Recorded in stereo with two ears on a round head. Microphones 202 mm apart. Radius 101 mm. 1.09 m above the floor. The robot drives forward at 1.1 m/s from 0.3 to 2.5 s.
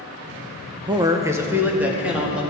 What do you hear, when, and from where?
0.9 s a man speaking: 20° right (ahead or behind), 0.6 m; by 2.4 s 5° right (ahead or behind), 2 m